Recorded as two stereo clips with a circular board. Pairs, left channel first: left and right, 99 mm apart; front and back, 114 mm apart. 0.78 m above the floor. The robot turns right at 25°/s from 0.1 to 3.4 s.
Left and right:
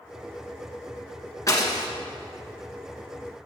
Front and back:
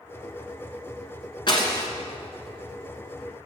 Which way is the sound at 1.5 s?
40° left.